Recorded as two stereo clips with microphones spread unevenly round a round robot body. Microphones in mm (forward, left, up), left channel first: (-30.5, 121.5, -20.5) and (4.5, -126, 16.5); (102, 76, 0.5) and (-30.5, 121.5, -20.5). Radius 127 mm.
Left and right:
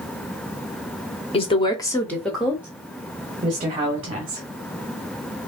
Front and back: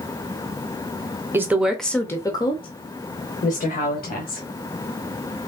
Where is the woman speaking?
120° left, 0.9 m; by 4.4 s 15° right, 1.7 m.